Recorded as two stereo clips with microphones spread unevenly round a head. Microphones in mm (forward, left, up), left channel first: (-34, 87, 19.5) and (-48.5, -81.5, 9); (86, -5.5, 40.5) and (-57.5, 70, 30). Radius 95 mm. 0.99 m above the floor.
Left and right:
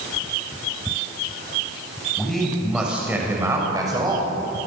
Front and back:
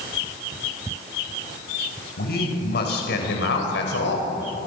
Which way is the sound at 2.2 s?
5° right.